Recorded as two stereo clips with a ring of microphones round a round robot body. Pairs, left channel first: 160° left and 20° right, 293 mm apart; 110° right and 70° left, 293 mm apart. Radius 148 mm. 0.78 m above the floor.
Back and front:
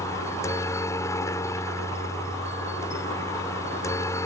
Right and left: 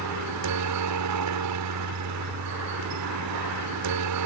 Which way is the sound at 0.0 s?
80° left.